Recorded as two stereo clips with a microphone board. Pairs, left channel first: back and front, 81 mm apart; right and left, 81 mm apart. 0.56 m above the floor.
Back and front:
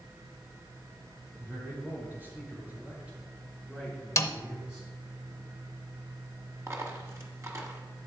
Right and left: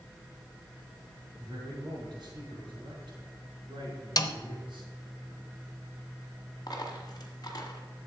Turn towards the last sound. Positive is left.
turn(degrees=-55)